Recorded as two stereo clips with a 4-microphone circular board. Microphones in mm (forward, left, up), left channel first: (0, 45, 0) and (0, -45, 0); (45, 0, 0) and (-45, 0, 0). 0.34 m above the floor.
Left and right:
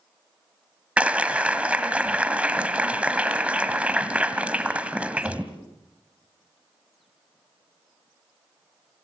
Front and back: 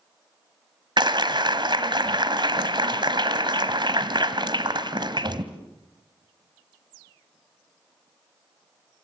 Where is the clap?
165° right, 1.5 m.